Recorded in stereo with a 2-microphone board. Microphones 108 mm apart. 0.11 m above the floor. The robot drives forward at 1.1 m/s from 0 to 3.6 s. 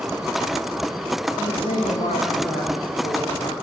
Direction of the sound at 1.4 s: 65° left (ahead or behind).